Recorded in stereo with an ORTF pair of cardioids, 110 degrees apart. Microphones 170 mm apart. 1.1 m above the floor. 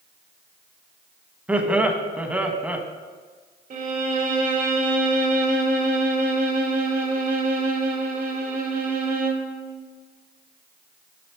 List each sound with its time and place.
1.5 s laughter: 10° right, 1.2 m
3.7 s a violin: 50° right, 1.8 m